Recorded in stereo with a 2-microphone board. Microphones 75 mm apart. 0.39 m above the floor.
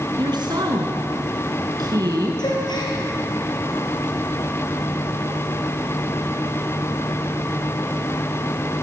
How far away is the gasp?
About 5.5 m.